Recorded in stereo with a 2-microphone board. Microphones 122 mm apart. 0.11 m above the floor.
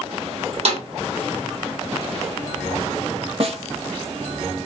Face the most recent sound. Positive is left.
turn(degrees=-55)  # may be behind; listen again after turning